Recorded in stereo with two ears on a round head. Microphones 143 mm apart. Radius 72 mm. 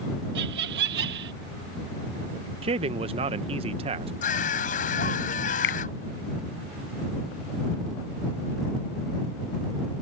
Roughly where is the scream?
Left.